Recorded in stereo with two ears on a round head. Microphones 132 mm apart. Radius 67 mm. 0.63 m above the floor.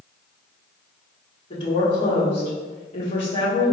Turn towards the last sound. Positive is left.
turn(degrees=40)  # may be behind; listen again after turning